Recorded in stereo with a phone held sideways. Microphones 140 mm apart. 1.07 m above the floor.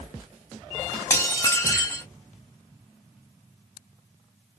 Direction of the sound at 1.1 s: 20° left (ahead or behind).